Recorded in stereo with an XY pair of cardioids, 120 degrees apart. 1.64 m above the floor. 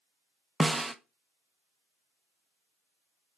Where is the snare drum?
10° right, 0.9 m.